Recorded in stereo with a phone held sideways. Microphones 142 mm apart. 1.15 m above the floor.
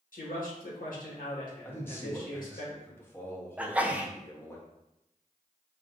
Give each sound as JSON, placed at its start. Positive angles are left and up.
{"t": 0.1, "sound": "a man speaking", "side_deg": 85, "distance_m": 1.5}
{"t": 1.6, "sound": "a man speaking", "side_deg": 15, "distance_m": 0.9}
{"t": 3.6, "sound": "a sneeze", "side_deg": -10, "distance_m": 0.6}